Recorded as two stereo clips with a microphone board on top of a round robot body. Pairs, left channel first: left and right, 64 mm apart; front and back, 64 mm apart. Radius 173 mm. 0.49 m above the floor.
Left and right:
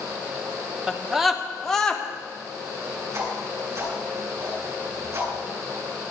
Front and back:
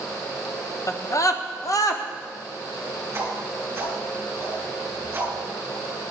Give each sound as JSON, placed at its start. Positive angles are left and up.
{"t": 0.9, "sound": "a scream", "azimuth_deg": -15, "distance_m": 1.5}
{"t": 3.1, "sound": "a whoosh", "azimuth_deg": -125, "distance_m": 7.0}